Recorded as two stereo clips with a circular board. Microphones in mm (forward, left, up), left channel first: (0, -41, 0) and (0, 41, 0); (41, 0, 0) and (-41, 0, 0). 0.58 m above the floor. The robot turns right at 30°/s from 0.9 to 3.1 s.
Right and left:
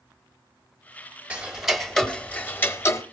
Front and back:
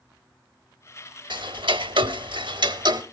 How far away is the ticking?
About 0.8 m.